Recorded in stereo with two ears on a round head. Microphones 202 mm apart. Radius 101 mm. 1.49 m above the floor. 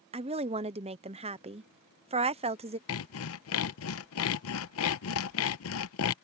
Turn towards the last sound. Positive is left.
turn(degrees=70)  # may be behind; listen again after turning